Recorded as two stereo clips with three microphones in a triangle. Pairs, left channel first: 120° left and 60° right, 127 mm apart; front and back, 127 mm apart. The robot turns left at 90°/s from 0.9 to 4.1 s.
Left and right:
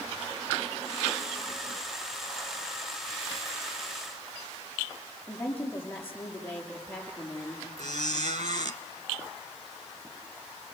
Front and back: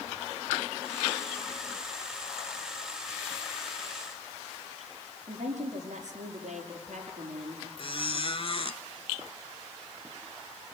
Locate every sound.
5.3 s a woman speaking: 165° right, 5.5 m
7.8 s a squeak: 40° right, 0.9 m